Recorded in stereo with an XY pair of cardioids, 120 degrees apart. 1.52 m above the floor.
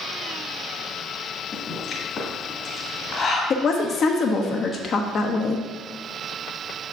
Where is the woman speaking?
45° left, 0.9 m.